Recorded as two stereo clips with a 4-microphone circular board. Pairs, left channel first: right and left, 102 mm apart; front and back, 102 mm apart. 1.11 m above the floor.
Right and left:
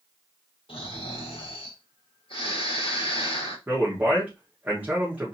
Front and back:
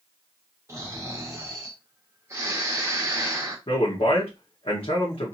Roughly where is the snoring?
Behind right.